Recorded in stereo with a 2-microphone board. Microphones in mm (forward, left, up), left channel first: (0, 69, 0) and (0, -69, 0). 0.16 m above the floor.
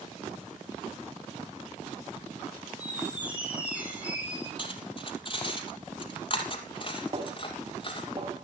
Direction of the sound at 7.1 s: 40° right (ahead or behind).